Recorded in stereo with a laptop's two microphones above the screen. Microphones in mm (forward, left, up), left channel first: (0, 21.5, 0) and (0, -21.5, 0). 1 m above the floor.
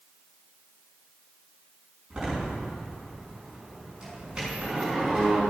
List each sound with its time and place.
2.1 s a door slam: 15° right (ahead or behind), 7.5 m